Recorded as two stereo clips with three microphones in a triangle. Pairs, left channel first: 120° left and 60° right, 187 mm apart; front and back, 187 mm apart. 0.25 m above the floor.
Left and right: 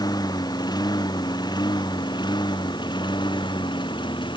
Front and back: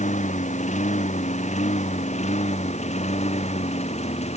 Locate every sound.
0.0 s a lawn mower: 50° left; by 4.4 s 55° left